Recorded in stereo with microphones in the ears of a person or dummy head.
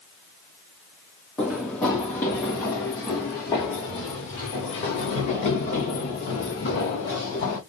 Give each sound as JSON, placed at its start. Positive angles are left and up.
{"t": 1.4, "sound": "running footsteps", "side_deg": 5, "distance_m": 3.0}